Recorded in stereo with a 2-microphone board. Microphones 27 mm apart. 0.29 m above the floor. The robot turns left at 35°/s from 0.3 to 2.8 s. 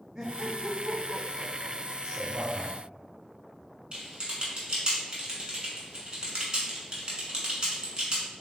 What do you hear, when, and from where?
0.1 s laughter: 30° right (ahead or behind), 1.2 m; by 1.9 s 10° left (ahead or behind), 1.2 m
2.0 s a man speaking: 5° left (ahead or behind), 1.8 m; by 2.7 s 10° right (ahead or behind), 1.8 m
3.9 s typing on a keyboard: 40° right (ahead or behind), 1.2 m